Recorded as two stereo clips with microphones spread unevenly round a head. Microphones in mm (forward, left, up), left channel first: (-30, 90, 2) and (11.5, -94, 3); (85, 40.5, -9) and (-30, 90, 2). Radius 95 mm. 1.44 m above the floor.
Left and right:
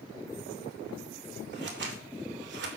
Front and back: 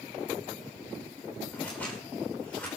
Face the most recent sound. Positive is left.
turn(degrees=-105)